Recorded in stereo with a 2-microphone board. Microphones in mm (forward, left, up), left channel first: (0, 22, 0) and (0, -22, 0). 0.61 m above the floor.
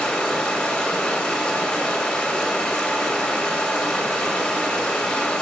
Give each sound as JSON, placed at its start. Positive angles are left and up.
{"t": 0.0, "sound": "running water", "side_deg": 15, "distance_m": 2.5}